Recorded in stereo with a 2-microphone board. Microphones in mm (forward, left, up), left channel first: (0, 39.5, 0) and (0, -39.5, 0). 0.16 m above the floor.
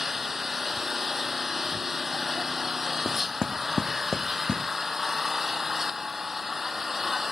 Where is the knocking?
10° left (ahead or behind).